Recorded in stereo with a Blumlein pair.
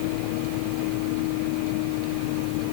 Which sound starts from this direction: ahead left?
A vehicle, at 0.0 s.